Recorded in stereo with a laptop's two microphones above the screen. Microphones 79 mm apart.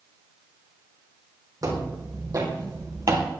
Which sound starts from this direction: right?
Footsteps, at 1.6 s.